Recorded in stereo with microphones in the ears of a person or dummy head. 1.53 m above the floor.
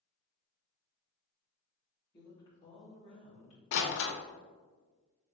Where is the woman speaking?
25° left (ahead or behind), 1.8 m; by 3.6 s 40° left (ahead or behind), 2.5 m.